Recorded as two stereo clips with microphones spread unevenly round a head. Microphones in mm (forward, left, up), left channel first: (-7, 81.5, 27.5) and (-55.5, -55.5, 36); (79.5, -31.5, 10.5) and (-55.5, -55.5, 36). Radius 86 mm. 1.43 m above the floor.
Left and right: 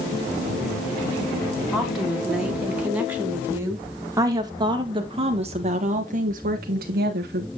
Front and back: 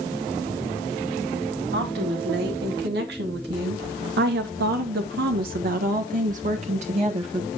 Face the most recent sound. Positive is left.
turn(degrees=-115)